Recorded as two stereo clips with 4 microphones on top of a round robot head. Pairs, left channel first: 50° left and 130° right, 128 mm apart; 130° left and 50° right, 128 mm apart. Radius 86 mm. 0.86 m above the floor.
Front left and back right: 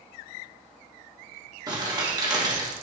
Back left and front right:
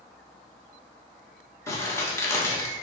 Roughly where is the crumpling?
Behind.